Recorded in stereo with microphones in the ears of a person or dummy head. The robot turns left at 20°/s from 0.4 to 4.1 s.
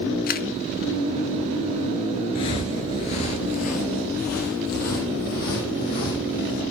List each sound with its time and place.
0.3 s a camera shutter: 40° left (ahead or behind), 0.7 m
2.4 s footsteps: 20° left (ahead or behind), 1.1 m; by 6.6 s 50° left (ahead or behind), 4 m